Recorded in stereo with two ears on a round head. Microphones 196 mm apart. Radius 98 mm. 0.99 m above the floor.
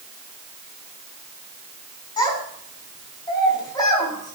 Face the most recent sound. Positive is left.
turn(degrees=20)  # may be behind; listen again after turning